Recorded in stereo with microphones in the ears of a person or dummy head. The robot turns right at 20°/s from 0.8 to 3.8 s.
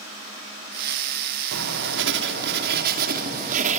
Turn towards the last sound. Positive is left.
turn(degrees=-50)